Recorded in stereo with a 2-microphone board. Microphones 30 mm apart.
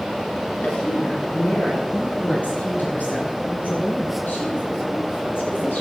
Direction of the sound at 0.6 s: 55° left (ahead or behind).